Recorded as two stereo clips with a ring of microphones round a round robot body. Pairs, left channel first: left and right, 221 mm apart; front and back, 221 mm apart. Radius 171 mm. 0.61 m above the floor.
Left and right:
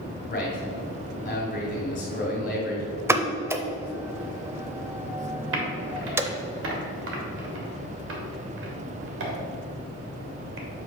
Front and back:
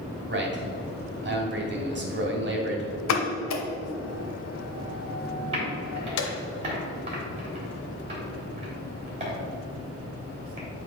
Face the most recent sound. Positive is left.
turn(degrees=-115)